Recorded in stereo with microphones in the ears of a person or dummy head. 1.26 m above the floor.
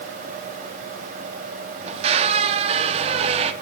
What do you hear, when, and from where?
1.8 s a squeak: 35° right (ahead or behind), 1.1 m